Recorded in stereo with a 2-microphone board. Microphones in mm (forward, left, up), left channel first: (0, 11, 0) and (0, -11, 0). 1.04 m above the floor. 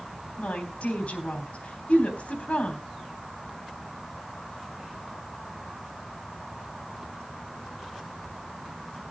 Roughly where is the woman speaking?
Left.